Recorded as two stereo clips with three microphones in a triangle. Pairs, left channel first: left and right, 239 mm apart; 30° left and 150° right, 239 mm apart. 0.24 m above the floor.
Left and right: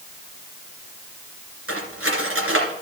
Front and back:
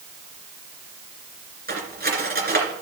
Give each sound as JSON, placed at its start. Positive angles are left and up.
{"t": 1.7, "sound": "cutlery clinking", "azimuth_deg": -105, "distance_m": 2.5}